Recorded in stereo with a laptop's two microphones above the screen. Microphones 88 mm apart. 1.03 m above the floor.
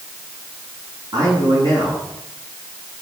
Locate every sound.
1.1 s a man speaking: 60° right (ahead or behind), 9 m